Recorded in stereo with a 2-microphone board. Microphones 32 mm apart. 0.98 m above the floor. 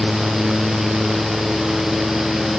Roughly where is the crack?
No crack in this recording.